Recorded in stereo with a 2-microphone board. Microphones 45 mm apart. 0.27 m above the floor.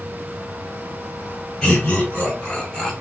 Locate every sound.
1.6 s laughter: 20° left (ahead or behind), 1.7 m; by 2.9 s 10° left (ahead or behind), 1.5 m